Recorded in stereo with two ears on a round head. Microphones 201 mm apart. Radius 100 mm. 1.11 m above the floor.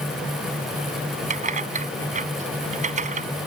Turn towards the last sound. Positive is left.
turn(degrees=-35)  # may be behind; listen again after turning